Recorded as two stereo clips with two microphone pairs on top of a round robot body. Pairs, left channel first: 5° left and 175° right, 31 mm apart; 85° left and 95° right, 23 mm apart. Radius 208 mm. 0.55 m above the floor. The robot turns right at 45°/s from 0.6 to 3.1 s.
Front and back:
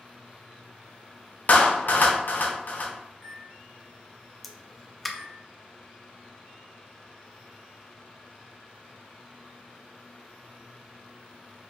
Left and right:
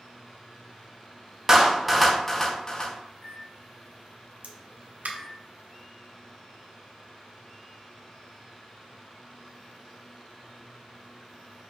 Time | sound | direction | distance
1.5 | a clap | 25° right | 0.9 m
3.1 | a microwave | 85° left | 1.2 m
4.4 | a pop | 85° right | 0.5 m